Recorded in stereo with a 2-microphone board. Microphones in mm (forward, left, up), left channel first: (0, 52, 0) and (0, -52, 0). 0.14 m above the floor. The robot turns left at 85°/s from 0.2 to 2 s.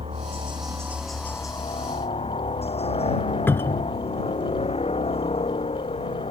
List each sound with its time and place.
0.0 s a helicopter: 105° right; by 6.3 s 100° left
3.5 s a cupboard door: 20° left (ahead or behind)